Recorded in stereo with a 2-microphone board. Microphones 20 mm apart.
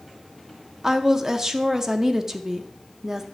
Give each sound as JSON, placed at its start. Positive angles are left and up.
{"t": 0.8, "sound": "a woman speaking", "side_deg": -20, "distance_m": 0.6}